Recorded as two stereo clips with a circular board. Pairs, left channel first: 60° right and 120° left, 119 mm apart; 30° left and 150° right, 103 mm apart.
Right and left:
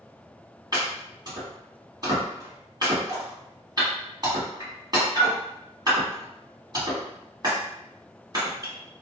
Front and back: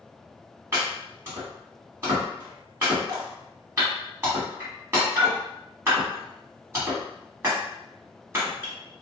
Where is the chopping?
155° left, 1.6 m.